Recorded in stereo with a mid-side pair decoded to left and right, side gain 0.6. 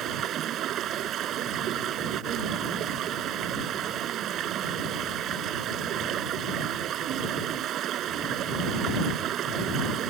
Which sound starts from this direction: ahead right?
Running water, at 0.0 s.